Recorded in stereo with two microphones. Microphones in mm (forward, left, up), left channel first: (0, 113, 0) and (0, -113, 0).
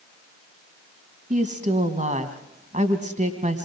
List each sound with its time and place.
1.3 s a woman speaking: 35° right (ahead or behind), 1.9 m